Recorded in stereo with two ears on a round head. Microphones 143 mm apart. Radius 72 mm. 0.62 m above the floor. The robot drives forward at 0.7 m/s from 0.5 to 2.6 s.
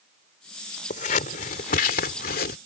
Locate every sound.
0.9 s scissors: 45° left (ahead or behind); by 2.6 s 60° left (ahead or behind)